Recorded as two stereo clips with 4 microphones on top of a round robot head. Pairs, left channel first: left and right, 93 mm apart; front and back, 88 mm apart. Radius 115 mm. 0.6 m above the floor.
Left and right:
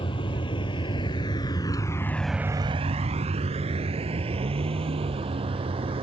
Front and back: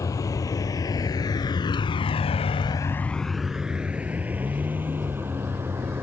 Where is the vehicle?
50° left; by 6.0 s 110° right.